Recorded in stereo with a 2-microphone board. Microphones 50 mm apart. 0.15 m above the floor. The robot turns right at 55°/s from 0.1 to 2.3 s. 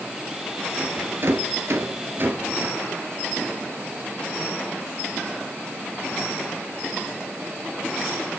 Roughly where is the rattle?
Right.